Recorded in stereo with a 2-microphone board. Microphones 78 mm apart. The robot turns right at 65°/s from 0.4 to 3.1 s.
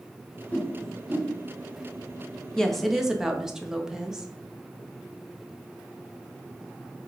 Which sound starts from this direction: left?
A whoosh, at 0.5 s.